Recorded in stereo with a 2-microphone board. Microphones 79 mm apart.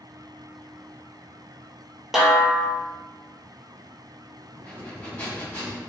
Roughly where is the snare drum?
Centre.